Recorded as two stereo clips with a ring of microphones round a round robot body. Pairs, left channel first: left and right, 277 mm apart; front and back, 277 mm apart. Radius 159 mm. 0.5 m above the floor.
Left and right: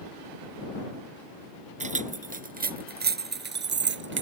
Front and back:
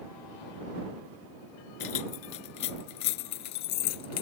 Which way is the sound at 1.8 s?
25° right.